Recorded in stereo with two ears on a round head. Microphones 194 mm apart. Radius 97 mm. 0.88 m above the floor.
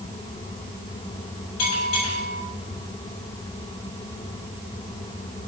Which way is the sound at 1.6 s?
80° left.